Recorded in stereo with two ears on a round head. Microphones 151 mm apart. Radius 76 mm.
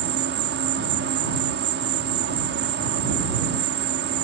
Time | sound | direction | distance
0.0 | an insect | 70° right (ahead or behind) | ?